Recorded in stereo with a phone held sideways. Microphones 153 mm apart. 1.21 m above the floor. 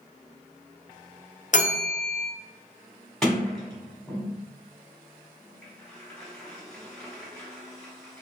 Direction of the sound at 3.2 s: 5° left (ahead or behind).